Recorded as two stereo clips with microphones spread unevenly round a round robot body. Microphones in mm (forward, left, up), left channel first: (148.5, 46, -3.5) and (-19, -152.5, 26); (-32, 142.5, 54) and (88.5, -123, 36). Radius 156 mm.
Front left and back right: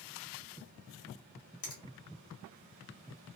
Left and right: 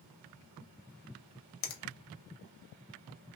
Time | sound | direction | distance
1.6 | a finger snap | 110° left | 0.8 m